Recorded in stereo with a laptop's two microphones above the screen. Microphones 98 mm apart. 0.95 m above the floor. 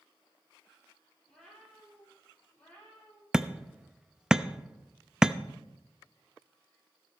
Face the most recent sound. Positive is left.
turn(degrees=-10)  # may be behind; listen again after turning